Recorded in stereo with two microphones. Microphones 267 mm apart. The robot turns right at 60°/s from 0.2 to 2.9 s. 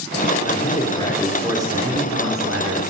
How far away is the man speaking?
About 3 m.